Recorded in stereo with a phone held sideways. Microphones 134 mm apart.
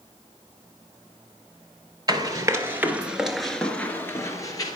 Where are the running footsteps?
30° right (ahead or behind), 1.7 m; by 4.8 s 30° left (ahead or behind), 1.8 m.